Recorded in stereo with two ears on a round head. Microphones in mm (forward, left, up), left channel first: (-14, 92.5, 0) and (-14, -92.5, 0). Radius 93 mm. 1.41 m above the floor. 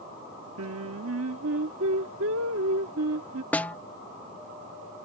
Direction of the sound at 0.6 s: 70° right (ahead or behind).